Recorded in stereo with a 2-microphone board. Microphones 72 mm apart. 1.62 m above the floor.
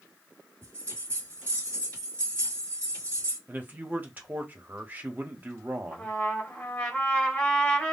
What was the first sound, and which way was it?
A bell, 25° left (ahead or behind).